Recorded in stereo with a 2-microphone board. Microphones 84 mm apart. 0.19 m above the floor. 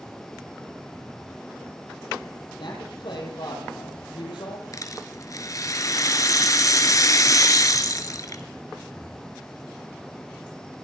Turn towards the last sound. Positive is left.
turn(degrees=45)  # may be behind; listen again after turning